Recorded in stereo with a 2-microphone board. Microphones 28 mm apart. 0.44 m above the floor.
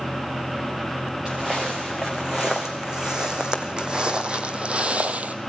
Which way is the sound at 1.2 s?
20° right (ahead or behind).